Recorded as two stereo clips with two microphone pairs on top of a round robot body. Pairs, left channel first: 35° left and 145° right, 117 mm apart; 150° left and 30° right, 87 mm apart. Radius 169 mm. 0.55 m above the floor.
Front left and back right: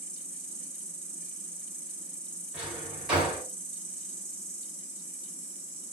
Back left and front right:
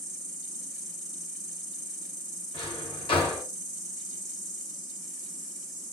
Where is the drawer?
130° left, 1.6 m.